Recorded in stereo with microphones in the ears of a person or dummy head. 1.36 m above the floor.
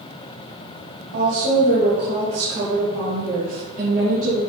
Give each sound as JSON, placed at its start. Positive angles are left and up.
{"t": 1.1, "sound": "a woman speaking", "side_deg": -75, "distance_m": 2.5}